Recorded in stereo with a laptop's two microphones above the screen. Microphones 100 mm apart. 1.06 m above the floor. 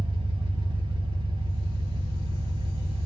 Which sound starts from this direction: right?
An engine running, at 0.0 s.